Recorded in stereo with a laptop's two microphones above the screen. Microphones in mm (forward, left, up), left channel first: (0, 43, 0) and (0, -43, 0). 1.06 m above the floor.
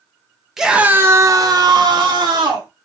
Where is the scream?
5° right (ahead or behind), 0.8 m; by 2.7 s 55° right (ahead or behind), 1.5 m.